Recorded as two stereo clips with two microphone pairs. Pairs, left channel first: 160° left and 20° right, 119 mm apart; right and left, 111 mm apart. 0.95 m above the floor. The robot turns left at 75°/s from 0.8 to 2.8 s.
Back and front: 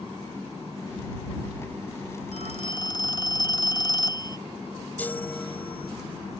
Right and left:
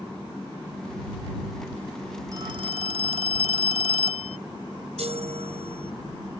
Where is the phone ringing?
150° left; by 4.4 s 110° left.